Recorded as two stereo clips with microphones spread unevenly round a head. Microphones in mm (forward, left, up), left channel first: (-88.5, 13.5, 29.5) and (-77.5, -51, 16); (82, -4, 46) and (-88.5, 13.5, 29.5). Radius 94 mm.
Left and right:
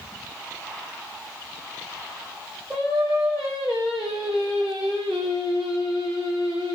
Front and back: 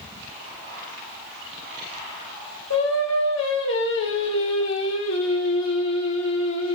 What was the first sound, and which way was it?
Singing, 5° left.